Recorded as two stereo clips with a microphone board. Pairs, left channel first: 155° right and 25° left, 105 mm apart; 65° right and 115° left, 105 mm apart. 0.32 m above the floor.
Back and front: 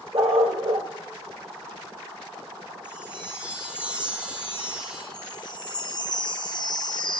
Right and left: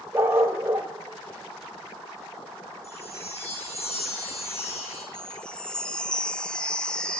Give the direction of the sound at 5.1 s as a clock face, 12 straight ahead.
5 o'clock.